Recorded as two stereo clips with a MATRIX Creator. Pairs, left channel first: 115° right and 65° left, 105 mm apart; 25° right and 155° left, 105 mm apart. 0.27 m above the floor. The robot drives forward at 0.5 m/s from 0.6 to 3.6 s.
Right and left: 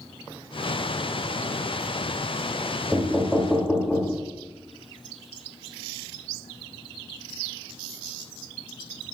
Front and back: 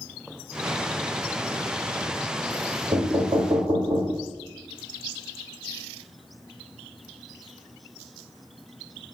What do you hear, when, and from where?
2.9 s knocking: 140° left, 1.2 m; by 4.2 s 150° left, 1.4 m